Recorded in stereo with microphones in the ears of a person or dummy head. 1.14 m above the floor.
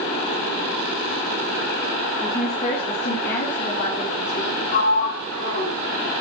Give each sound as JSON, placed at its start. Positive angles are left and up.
{"t": 2.2, "sound": "a woman speaking", "side_deg": 10, "distance_m": 2.5}
{"t": 4.7, "sound": "a sliding door", "side_deg": 55, "distance_m": 6.5}